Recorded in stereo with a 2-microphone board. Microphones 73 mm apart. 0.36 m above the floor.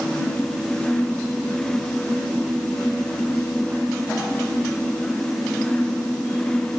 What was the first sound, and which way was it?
Only background noise.